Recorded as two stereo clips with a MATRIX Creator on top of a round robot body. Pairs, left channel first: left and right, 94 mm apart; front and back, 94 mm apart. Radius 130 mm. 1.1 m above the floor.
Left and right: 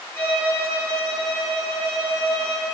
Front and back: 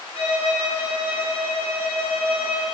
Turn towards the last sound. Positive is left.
turn(degrees=25)